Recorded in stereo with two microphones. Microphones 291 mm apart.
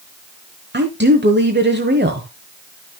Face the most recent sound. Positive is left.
turn(degrees=-35)  # may be behind; listen again after turning